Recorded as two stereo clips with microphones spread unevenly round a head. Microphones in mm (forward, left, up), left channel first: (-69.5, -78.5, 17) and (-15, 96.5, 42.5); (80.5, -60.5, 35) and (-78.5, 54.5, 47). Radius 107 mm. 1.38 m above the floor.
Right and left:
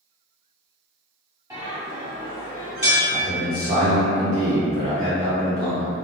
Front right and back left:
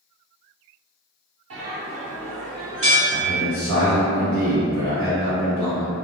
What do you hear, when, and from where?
1.5 s a bell: 145° left, 1.1 m
3.1 s a man speaking: 140° left, 0.8 m